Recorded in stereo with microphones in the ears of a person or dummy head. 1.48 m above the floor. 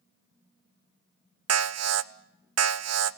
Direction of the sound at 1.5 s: 70° right (ahead or behind).